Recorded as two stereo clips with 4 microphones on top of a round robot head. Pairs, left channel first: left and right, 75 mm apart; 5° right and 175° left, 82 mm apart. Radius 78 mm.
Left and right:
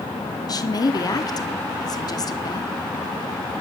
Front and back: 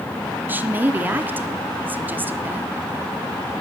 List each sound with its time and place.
0.5 s a woman speaking: 110° left, 1.4 m